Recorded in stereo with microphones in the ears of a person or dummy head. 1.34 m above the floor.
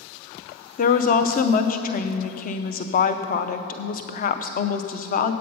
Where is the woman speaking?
40° left (ahead or behind), 0.6 m.